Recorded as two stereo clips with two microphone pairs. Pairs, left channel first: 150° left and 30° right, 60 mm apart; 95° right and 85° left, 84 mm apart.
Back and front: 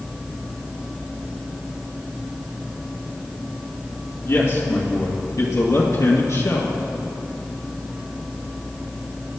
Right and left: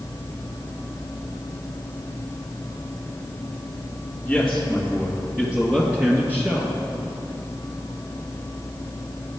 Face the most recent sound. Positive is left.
turn(degrees=145)